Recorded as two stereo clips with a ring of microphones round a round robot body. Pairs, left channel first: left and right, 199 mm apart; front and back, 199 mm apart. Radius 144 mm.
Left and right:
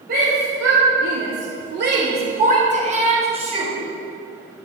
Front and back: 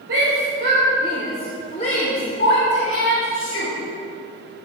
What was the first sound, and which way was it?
A shout, 140° right.